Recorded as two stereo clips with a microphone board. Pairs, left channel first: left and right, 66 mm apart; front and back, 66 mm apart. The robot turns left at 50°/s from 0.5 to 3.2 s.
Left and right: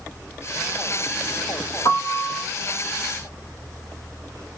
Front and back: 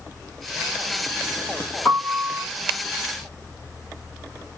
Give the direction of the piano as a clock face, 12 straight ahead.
10 o'clock.